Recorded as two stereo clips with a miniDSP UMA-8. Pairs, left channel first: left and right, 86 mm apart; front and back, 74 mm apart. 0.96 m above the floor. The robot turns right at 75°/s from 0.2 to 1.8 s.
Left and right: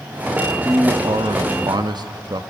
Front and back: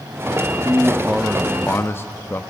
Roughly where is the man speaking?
Behind right.